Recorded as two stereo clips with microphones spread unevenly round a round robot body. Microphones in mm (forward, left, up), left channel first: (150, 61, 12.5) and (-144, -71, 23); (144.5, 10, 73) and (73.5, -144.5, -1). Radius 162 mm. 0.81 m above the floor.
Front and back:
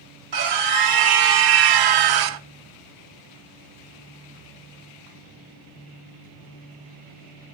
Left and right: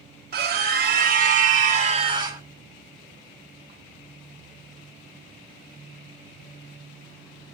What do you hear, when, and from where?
0.3 s a scream: 125° right, 1.7 m; by 2.4 s 175° right, 0.8 m